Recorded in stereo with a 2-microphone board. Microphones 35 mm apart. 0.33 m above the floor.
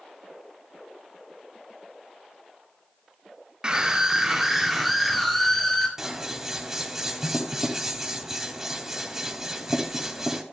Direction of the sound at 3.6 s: 25° right (ahead or behind).